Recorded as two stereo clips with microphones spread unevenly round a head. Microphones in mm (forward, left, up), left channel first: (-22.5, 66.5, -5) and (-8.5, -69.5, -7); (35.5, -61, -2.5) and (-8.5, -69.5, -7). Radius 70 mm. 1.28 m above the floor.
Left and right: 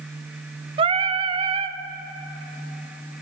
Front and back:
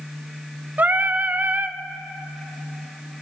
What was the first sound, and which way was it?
Singing, 130° right.